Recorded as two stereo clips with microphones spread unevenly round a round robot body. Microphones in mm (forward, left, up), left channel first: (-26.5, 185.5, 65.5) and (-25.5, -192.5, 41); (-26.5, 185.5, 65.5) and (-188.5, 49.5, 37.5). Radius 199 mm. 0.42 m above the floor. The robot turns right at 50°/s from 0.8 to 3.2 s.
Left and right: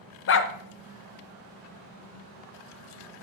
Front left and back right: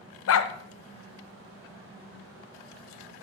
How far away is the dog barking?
About 0.7 m.